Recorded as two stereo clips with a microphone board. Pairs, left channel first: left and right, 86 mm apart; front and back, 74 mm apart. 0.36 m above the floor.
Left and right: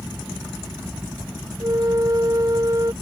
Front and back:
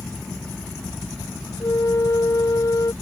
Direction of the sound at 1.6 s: 40° right.